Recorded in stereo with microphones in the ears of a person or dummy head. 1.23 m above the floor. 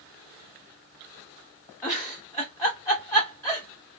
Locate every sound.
1.8 s a giggle: 15° left (ahead or behind), 1.0 m